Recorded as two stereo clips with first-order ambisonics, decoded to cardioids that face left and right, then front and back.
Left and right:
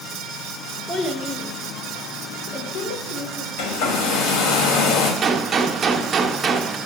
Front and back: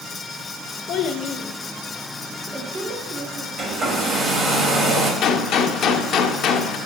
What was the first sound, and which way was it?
A child speaking, 15° left.